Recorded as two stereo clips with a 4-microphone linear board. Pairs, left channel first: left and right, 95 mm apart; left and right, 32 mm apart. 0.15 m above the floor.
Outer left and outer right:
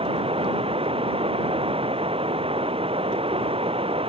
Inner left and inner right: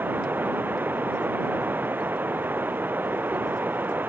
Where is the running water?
80° right.